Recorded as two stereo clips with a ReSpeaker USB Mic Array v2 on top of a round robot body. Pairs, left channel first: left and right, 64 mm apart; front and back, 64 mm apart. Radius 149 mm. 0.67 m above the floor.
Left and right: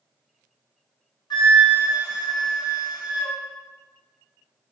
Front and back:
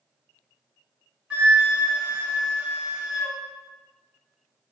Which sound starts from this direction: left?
A flute, at 1.3 s.